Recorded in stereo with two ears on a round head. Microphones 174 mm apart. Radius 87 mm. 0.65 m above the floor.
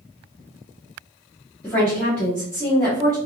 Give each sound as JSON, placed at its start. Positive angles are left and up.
{"t": 1.6, "sound": "a woman speaking", "side_deg": 5, "distance_m": 1.6}